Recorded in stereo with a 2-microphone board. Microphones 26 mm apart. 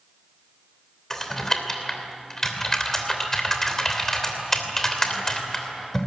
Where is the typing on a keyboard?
10° left (ahead or behind), 3 m.